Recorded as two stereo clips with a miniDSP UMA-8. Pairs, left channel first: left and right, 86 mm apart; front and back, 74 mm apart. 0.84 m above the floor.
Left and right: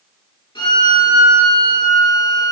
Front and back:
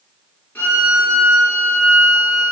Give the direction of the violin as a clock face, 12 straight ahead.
10 o'clock.